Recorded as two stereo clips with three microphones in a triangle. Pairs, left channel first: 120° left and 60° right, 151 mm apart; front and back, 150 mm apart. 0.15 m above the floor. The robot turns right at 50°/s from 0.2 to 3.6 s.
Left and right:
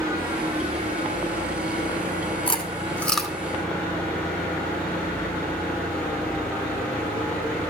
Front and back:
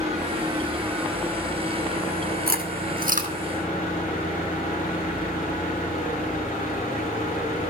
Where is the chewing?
170° left, 2 m; by 3.3 s 145° right, 2 m.